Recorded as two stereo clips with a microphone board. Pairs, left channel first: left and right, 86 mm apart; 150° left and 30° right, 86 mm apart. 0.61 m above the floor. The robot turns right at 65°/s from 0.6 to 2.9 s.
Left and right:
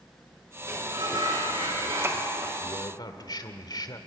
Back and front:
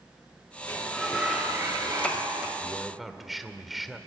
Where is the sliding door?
145° right, 6 m; by 2.5 s 25° right, 6 m.